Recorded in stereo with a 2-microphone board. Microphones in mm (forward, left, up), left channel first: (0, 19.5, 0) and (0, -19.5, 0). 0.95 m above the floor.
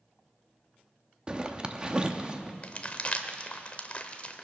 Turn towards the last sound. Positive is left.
turn(degrees=35)  # may be behind; listen again after turning